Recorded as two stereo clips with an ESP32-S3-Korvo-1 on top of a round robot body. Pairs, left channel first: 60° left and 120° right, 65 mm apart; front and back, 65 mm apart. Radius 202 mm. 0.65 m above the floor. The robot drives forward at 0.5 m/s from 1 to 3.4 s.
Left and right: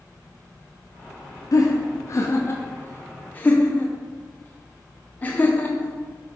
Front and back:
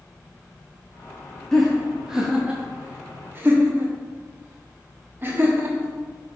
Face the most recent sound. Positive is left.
turn(degrees=125)